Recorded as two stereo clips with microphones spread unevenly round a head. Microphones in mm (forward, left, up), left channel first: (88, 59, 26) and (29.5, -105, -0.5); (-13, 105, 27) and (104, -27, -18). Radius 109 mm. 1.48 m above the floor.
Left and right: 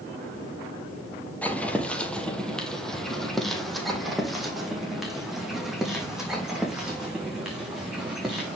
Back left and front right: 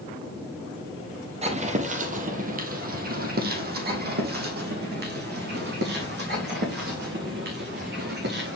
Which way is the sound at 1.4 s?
5° left.